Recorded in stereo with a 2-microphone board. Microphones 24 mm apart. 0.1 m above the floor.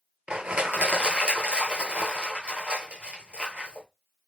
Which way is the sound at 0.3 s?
50° right (ahead or behind).